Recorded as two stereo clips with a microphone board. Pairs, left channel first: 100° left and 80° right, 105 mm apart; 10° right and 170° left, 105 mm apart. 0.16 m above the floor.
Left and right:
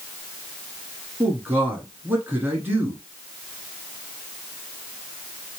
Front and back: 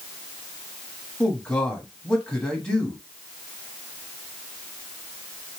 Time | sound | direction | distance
1.2 | a man speaking | 80° right | 1.0 m